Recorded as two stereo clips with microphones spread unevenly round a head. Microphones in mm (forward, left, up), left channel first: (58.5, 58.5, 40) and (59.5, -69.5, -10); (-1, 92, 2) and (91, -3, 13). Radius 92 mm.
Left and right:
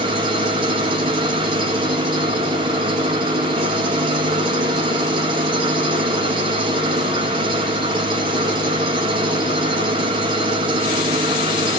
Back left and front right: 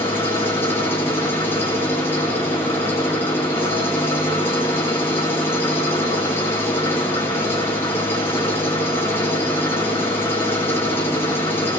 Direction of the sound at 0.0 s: 150° right.